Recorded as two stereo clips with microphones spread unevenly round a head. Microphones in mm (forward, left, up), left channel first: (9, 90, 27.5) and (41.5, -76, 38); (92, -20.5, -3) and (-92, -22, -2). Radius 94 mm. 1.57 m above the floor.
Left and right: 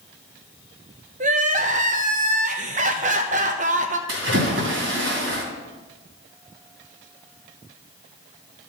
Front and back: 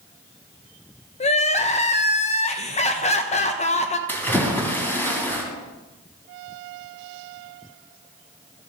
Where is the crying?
45° right, 0.9 m.